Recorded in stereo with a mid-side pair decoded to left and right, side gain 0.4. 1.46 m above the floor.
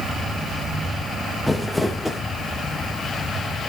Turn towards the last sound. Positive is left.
turn(degrees=15)